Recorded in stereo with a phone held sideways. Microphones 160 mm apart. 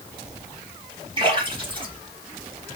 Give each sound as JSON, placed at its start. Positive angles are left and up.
{"t": 1.2, "sound": "a splash", "side_deg": -35, "distance_m": 2.5}